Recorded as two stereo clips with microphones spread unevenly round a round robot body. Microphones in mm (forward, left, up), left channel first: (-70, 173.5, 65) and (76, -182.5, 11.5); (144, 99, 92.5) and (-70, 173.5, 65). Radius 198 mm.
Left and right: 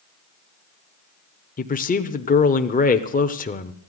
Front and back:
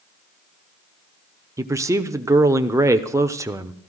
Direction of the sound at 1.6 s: 165° left.